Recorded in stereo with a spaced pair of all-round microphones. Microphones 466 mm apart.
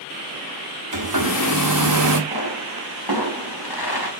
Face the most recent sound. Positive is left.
turn(degrees=50)  # may be behind; listen again after turning